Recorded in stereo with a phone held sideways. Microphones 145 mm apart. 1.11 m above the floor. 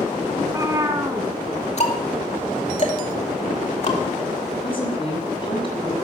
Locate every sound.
0.4 s a cat meowing: 25° right (ahead or behind), 1.6 m
1.8 s ticking: 50° left (ahead or behind), 2.5 m
4.6 s a woman speaking: 35° left (ahead or behind), 7 m